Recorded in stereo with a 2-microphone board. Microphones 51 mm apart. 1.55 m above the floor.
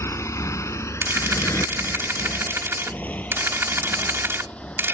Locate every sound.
0.0 s a motorcycle: 65° left (ahead or behind); by 4.9 s 20° left (ahead or behind)
1.0 s a camera shutter: 50° right (ahead or behind)